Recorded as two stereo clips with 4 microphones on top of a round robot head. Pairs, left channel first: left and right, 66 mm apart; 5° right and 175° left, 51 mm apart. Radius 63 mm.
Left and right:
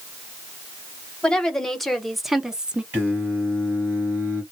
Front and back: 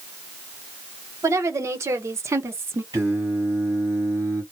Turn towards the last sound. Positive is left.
turn(degrees=-145)